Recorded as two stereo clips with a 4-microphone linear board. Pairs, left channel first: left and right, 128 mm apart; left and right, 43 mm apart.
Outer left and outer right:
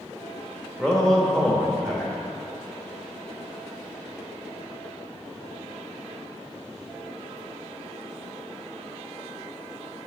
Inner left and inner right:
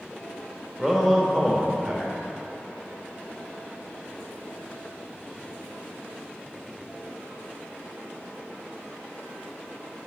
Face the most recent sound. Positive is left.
turn(degrees=5)  # may be behind; listen again after turning